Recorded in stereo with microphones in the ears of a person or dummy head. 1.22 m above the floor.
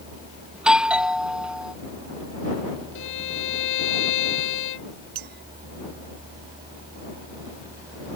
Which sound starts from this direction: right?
A clink, at 5.2 s.